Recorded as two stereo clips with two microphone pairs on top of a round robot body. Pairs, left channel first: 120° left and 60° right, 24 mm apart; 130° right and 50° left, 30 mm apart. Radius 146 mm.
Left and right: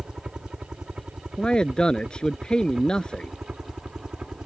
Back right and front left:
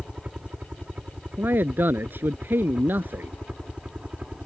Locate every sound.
0.0 s a helicopter: 10° right
1.4 s a man speaking: 65° left